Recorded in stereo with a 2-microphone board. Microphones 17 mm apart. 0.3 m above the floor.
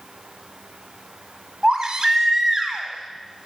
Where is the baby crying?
40° right (ahead or behind), 1.3 m.